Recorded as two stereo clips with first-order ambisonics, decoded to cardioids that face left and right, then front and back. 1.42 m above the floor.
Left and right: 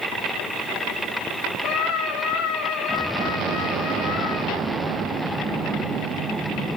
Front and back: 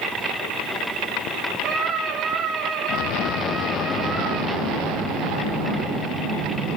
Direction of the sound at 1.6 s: 125° left.